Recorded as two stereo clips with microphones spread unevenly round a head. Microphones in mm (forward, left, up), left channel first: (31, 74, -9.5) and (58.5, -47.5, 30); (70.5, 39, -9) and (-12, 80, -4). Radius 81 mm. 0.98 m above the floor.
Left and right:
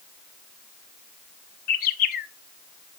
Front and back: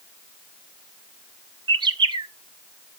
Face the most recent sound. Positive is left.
turn(degrees=115)